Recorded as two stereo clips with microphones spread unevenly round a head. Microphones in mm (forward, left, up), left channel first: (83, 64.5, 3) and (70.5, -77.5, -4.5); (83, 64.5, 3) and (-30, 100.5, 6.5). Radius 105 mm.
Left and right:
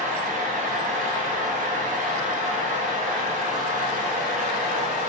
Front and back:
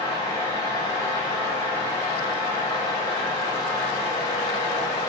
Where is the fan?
80° right, 0.9 m.